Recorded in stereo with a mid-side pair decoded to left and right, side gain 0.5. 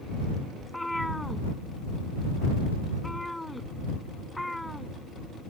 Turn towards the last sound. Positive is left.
turn(degrees=5)